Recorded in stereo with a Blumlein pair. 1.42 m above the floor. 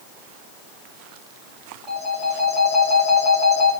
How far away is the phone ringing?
About 2 m.